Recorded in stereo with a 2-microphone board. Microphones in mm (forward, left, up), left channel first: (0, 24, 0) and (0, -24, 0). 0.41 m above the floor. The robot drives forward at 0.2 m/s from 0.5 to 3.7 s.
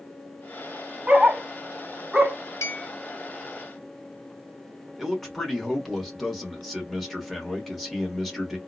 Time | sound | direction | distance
1.1 | a dog barking | 25° right (ahead or behind) | 0.6 m
2.6 | a clink | 70° left (ahead or behind) | 1.4 m
5.0 | a man speaking | centre (ahead or behind) | 1.2 m